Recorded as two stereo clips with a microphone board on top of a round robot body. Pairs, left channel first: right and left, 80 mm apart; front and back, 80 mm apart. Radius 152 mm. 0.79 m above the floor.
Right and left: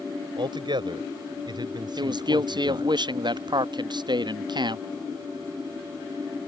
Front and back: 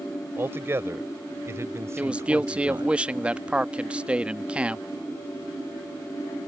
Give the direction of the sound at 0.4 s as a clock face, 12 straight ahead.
8 o'clock.